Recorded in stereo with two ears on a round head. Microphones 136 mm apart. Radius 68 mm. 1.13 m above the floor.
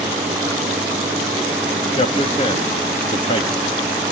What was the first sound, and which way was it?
A man speaking, 40° left (ahead or behind).